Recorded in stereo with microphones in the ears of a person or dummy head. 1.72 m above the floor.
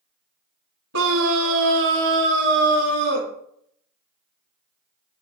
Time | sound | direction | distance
0.9 | a scream | 75° right (ahead or behind) | 1.5 m